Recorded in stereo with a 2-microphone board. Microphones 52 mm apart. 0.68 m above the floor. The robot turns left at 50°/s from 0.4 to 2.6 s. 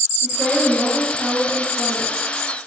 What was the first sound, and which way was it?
A woman speaking, 160° right.